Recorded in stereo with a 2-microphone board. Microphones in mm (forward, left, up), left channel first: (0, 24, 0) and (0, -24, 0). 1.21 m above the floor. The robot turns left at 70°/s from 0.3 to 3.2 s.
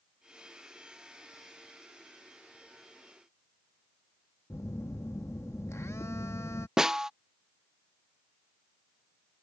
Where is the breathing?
No breathing in this recording.